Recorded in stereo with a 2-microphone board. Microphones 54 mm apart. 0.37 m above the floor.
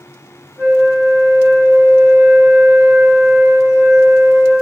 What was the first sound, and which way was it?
A flute, 60° right (ahead or behind).